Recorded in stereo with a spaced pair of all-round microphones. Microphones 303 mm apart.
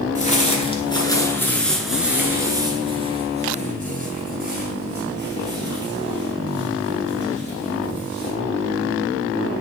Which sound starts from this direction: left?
Footsteps, at 0.1 s.